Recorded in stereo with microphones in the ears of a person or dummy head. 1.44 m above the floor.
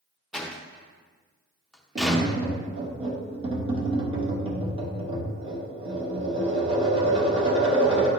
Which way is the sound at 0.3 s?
Centre (ahead or behind).